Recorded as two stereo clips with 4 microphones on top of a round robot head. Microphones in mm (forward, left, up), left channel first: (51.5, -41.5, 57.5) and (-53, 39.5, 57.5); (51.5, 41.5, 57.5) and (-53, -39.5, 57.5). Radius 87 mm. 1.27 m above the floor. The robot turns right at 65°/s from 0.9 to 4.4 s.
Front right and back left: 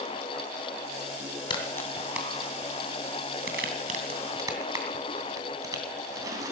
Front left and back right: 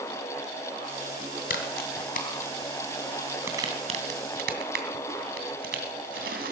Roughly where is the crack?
Ahead.